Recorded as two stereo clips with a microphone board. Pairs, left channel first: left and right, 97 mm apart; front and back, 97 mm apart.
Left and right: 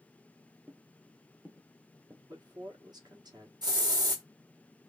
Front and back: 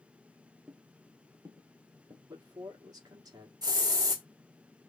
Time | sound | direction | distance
0.7 | footsteps | 115° right | 0.9 m
2.3 | a man speaking | 135° right | 1.3 m
3.6 | a hiss | 130° right | 1.2 m